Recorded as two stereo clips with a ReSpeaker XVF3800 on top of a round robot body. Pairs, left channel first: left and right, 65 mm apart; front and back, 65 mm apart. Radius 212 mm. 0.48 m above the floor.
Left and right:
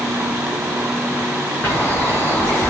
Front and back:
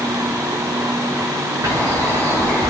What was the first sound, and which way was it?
A bird, 145° left.